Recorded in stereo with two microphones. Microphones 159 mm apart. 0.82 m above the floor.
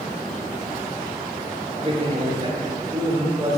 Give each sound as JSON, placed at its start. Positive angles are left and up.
{"t": 1.8, "sound": "a man speaking", "side_deg": -35, "distance_m": 2.0}